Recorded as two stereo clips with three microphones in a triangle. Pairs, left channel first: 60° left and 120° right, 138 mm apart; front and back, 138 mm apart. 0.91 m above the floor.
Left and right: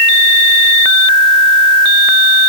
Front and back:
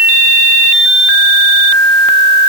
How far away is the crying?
I don't hear crying.